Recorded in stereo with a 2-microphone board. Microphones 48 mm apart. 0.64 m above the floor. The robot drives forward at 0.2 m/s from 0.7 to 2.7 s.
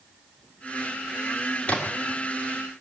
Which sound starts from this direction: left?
A splash, at 1.7 s.